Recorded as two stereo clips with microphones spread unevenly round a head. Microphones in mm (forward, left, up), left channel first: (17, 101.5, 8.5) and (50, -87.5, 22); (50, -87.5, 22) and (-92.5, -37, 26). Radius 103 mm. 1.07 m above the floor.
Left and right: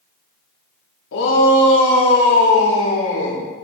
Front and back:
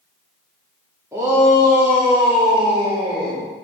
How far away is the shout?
About 2.5 m.